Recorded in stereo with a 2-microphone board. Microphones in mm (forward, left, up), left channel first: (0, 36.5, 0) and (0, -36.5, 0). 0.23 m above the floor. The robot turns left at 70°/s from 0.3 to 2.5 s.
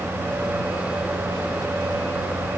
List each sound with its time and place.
Only background noise.